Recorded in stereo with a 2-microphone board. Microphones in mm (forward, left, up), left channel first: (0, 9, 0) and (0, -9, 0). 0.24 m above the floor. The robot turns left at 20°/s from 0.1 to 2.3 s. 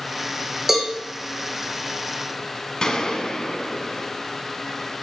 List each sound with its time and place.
0.7 s a cowbell: 20° right (ahead or behind), 2.5 m; by 0.9 s 15° right (ahead or behind), 2.5 m
2.8 s a gunshot: 50° left (ahead or behind), 1.4 m